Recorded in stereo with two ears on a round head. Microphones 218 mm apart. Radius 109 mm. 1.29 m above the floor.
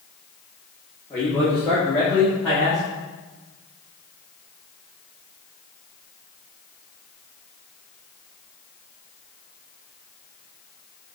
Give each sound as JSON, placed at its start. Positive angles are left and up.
{"t": 1.1, "sound": "a man speaking", "side_deg": 15, "distance_m": 1.9}